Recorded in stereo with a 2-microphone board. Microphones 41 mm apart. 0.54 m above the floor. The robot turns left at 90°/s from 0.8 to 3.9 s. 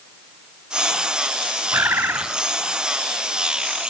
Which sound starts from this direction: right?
A bird, at 1.7 s.